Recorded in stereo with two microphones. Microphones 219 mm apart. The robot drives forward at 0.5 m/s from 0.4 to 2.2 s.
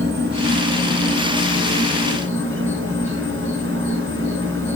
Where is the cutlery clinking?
No cutlery clinking in this recording.